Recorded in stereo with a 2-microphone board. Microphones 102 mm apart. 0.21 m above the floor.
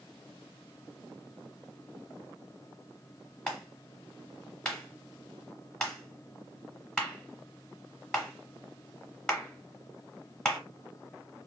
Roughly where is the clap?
Centre.